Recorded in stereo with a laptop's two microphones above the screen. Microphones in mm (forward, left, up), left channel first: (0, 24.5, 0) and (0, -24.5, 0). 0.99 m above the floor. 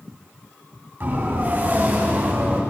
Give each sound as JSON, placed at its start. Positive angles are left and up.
{"t": 1.0, "sound": "a siren", "side_deg": -45, "distance_m": 9.0}